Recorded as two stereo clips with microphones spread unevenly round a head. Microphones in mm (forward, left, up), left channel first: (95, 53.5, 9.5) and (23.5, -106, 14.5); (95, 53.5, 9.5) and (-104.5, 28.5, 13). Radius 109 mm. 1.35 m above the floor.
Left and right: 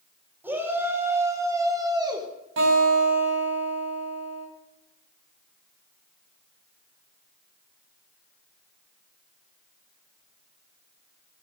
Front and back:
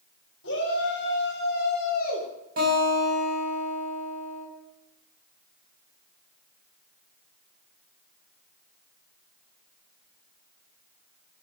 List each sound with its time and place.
0.4 s a shout: 35° right, 4.5 m; by 2.3 s 50° right, 3.5 m
2.6 s a guitar: 120° right, 9.5 m